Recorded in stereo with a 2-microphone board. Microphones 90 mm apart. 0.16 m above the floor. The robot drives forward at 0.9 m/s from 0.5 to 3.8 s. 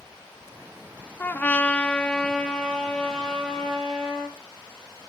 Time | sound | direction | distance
1.2 | a trumpet | 20° left (ahead or behind) | 0.6 m